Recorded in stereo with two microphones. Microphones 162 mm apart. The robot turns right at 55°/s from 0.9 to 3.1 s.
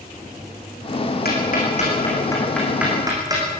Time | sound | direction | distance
1.2 | ticking | 75° left (ahead or behind) | 6.5 m